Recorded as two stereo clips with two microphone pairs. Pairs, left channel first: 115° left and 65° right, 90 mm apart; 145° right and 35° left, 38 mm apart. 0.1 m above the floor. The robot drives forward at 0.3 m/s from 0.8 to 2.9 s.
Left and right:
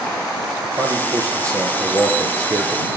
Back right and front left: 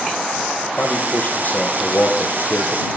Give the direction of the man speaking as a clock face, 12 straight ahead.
4 o'clock.